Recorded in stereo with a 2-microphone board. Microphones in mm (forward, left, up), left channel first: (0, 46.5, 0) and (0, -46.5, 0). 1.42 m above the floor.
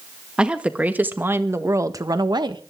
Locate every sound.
0.4 s a woman speaking: 10° right (ahead or behind), 1.9 m; by 2.6 s 55° right (ahead or behind), 1.3 m